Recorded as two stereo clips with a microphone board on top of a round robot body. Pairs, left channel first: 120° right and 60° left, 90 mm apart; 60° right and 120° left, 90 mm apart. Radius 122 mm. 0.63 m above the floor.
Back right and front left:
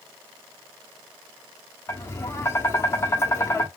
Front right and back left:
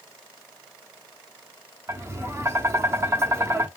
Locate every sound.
1.9 s tapping: straight behind, 0.9 m